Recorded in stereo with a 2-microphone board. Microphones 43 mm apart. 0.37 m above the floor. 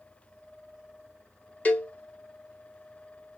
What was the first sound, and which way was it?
A cowbell, 30° left (ahead or behind).